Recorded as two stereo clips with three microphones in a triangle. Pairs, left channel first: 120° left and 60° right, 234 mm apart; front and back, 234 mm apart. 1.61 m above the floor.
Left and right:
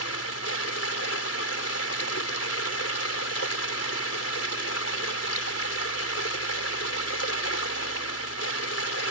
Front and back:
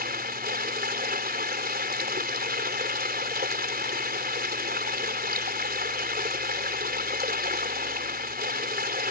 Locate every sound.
0.0 s running water: 130° left